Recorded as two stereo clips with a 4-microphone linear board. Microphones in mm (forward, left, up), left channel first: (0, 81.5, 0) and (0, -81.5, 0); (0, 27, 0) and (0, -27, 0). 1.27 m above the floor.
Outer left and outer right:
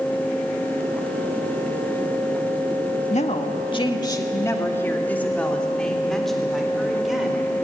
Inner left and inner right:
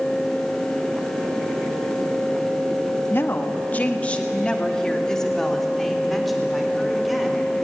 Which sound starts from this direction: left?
A woman speaking, at 3.1 s.